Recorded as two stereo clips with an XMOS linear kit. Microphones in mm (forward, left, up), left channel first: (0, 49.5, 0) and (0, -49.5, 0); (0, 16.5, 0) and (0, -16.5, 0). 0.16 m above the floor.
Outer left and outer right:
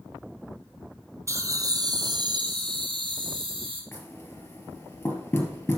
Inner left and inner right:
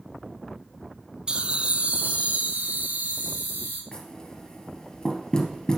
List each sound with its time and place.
1.3 s laughter: 30° right (ahead or behind), 1.1 m; by 3.8 s 60° right (ahead or behind), 3 m
3.9 s knocking: 20° left (ahead or behind), 2.5 m